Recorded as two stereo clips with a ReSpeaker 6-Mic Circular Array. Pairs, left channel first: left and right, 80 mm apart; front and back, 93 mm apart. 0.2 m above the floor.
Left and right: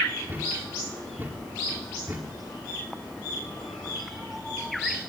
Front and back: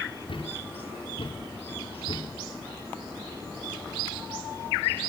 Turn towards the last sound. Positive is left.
turn(degrees=-25)